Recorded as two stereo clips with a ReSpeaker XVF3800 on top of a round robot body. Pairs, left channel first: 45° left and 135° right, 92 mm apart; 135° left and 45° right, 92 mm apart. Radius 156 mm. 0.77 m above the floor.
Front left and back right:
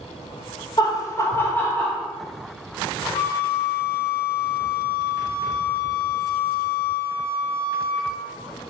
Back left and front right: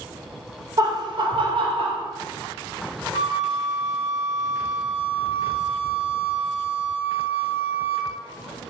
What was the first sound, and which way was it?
Laughter, 5° left.